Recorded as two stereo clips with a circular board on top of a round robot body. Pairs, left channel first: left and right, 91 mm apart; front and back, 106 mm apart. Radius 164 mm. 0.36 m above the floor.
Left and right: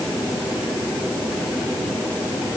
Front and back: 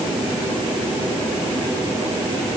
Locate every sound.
Only background noise.